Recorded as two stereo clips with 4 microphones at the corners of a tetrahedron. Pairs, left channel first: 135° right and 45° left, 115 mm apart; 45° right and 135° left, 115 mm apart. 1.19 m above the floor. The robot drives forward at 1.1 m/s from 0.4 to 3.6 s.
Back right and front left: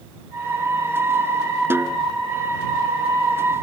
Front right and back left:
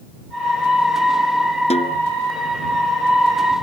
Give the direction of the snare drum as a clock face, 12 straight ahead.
1 o'clock.